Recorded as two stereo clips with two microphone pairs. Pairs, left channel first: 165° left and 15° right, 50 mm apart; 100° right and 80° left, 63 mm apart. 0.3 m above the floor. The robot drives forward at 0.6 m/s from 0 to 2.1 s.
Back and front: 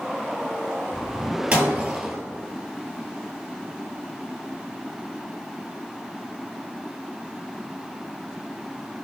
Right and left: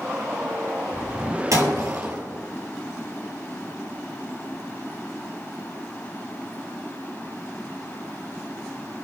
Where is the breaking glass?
50° left, 2.5 m; by 2.2 s 55° left, 2.5 m.